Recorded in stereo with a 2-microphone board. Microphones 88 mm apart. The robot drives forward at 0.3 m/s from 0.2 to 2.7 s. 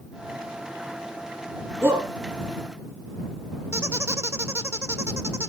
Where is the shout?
25° right (ahead or behind), 4 m.